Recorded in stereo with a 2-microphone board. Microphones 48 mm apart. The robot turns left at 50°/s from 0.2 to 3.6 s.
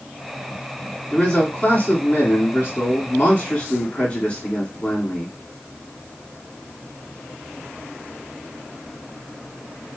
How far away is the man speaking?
About 2 m.